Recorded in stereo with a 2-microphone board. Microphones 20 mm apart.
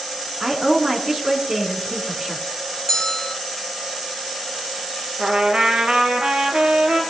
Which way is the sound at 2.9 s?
20° left (ahead or behind).